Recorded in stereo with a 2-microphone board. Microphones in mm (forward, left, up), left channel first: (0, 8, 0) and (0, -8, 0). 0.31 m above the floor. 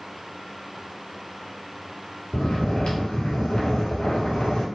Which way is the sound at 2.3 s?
80° left.